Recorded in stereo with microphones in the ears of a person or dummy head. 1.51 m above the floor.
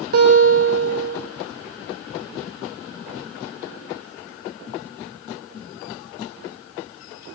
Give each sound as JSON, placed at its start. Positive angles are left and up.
{"t": 0.1, "sound": "a guitar", "side_deg": -55, "distance_m": 7.5}